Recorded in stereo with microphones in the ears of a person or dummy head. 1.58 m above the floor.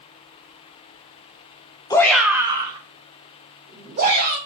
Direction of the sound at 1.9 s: 10° left (ahead or behind).